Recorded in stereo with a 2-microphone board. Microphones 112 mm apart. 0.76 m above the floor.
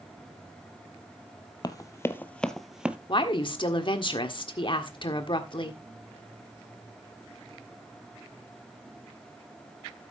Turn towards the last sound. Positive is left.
turn(degrees=45)  # may be behind; listen again after turning